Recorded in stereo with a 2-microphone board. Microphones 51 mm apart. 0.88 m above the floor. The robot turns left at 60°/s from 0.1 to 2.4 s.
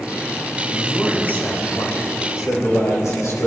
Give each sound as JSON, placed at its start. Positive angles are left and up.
{"t": 0.7, "sound": "a man speaking", "azimuth_deg": 180, "distance_m": 3.5}